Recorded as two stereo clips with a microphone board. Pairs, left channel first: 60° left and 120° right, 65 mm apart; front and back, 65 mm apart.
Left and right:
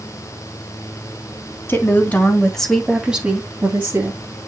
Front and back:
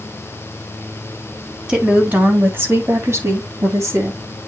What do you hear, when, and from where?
1.7 s a woman speaking: 105° left, 2.5 m; by 4.2 s 155° right, 2.5 m